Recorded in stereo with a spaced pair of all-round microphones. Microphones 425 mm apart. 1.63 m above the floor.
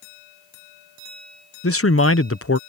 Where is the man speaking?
35° left (ahead or behind).